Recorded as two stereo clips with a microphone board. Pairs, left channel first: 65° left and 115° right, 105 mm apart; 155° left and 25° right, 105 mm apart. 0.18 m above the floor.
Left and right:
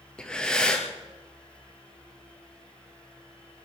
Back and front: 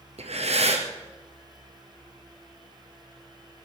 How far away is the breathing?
About 2 m.